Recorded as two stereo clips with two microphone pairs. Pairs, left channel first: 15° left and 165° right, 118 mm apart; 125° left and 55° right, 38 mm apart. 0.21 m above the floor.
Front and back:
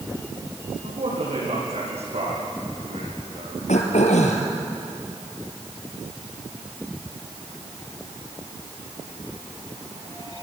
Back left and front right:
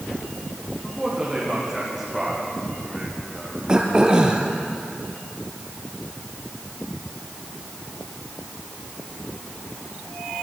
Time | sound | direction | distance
0.8 | a man speaking | 140° right | 8.5 m
3.7 | throat clearing | 15° left | 2.5 m